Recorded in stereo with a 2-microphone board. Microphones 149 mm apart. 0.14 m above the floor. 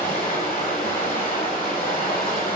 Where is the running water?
60° left (ahead or behind), 1.8 m.